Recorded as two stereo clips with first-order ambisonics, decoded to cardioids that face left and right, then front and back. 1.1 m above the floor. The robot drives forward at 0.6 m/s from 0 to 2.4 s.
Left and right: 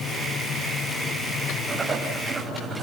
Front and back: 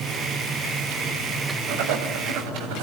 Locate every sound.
1.7 s writing: 160° right, 5 m; by 2.8 s 165° right, 5 m